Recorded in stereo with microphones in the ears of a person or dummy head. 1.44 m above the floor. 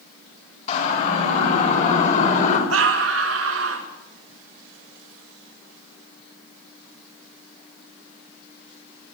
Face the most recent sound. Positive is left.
turn(degrees=-85)